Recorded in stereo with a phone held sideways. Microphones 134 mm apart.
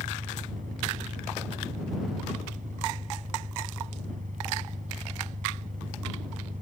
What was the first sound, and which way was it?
An engine running, 75° right (ahead or behind).